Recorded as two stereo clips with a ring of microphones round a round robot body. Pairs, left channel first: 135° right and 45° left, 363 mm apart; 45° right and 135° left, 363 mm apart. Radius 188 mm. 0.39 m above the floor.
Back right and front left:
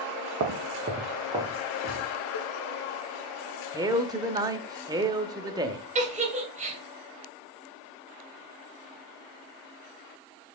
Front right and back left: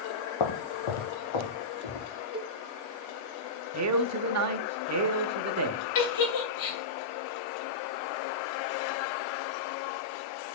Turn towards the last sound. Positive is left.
turn(degrees=-25)